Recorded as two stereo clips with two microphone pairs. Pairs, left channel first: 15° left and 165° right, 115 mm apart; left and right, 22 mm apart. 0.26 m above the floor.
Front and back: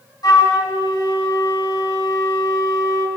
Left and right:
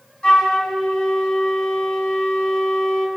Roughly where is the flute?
Ahead left.